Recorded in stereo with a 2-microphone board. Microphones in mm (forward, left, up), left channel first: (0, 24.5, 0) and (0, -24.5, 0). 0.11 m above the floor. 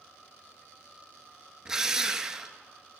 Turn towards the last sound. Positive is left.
turn(degrees=-10)  # may be behind; listen again after turning